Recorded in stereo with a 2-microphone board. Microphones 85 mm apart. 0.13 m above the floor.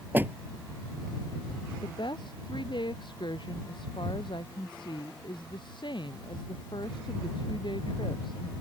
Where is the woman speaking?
65° left (ahead or behind).